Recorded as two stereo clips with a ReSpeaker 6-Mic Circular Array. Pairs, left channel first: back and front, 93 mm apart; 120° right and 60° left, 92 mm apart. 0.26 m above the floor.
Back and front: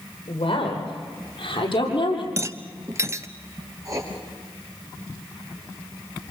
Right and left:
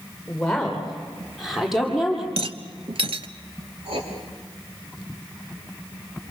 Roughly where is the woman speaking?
Behind left.